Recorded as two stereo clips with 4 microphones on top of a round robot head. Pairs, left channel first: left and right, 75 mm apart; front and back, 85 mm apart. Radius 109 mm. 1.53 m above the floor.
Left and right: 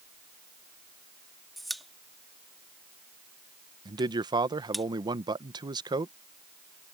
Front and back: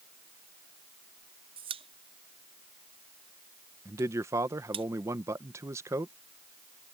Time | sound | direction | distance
1.6 | a pop | straight behind | ?
3.9 | a man speaking | 120° right | ?